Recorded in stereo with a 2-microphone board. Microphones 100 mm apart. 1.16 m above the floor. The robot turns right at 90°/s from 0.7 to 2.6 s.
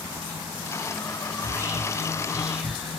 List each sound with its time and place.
1.4 s whispering: 20° right (ahead or behind), 0.6 m; by 3.0 s 5° right (ahead or behind), 0.6 m